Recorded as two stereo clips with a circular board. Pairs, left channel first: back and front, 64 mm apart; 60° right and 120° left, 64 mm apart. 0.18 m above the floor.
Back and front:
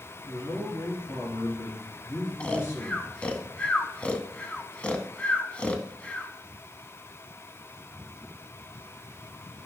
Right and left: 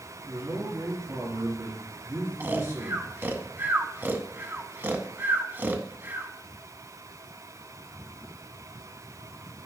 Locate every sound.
0.2 s a man speaking: 150° left, 3 m
2.4 s snoring: 125° left, 0.6 m